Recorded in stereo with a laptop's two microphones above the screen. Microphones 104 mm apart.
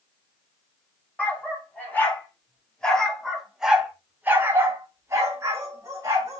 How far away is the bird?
No bird in this recording.